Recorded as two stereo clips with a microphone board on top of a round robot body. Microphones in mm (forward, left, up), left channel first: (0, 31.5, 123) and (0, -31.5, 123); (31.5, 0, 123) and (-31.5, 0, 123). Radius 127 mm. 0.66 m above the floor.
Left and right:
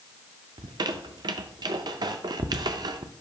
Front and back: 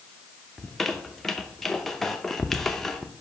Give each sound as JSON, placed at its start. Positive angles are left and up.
{"t": 0.6, "sound": "a squeak", "azimuth_deg": -85, "distance_m": 0.5}